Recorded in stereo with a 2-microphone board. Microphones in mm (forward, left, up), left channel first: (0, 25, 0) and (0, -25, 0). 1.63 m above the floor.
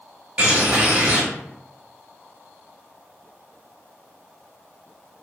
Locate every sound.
0.4 s a bird: 30° right (ahead or behind), 1.1 m